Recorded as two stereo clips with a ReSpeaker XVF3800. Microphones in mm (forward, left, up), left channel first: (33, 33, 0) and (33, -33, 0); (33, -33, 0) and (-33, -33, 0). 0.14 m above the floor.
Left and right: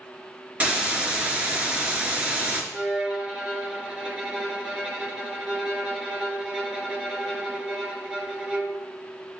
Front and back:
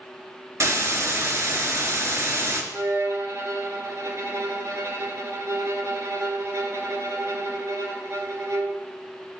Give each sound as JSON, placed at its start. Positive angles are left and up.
{"t": 0.6, "sound": "a hiss", "azimuth_deg": -155, "distance_m": 1.1}
{"t": 2.7, "sound": "a violin", "azimuth_deg": -165, "distance_m": 1.1}